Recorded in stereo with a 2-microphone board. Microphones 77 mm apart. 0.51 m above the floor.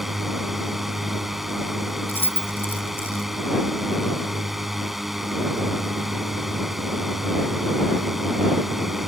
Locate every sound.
0.0 s a drone: 5° right (ahead or behind)
2.1 s keys jangling: 25° left (ahead or behind)